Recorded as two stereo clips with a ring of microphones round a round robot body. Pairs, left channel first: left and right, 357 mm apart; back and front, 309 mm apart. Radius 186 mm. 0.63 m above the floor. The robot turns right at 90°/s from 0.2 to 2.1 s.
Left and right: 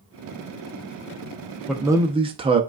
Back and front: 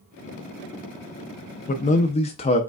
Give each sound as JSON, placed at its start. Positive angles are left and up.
{"t": 1.7, "sound": "a man speaking", "azimuth_deg": 180, "distance_m": 0.5}